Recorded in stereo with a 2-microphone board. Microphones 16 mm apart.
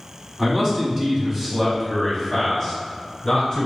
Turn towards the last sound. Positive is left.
turn(degrees=25)  # may be behind; listen again after turning